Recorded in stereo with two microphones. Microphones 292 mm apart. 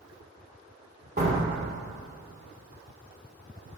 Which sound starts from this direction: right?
A door slam, at 1.2 s.